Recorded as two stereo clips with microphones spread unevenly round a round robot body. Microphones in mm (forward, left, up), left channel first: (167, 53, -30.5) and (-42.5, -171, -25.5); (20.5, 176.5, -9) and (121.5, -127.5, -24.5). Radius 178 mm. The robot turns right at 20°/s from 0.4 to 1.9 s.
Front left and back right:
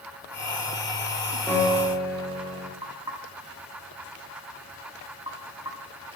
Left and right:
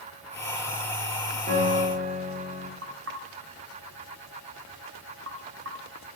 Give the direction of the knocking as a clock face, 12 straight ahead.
2 o'clock.